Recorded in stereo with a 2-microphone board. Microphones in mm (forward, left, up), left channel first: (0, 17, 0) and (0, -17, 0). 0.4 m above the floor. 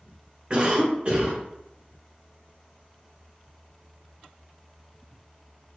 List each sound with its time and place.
0.5 s a cough: 35° right (ahead or behind), 1.0 m